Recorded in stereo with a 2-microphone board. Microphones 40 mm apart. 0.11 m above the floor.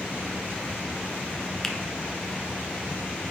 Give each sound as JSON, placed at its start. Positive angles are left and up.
{"t": 1.6, "sound": "a finger snap", "side_deg": 5, "distance_m": 1.1}